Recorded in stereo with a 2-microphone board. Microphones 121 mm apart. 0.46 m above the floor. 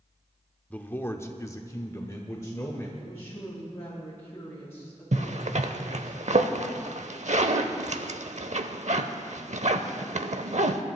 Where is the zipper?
70° right (ahead or behind), 0.8 m.